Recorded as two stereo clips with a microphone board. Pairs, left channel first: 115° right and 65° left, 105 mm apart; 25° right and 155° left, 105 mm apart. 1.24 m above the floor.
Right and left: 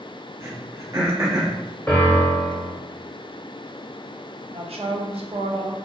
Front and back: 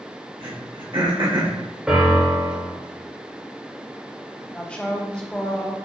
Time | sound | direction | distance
0.4 | throat clearing | 120° left | 0.9 m
1.9 | a piano | 140° right | 0.9 m
4.5 | a woman speaking | 55° left | 0.7 m